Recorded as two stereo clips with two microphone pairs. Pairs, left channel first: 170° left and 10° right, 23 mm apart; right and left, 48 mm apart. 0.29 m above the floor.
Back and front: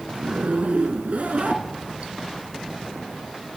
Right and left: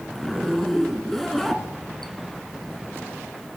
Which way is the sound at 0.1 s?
5° right.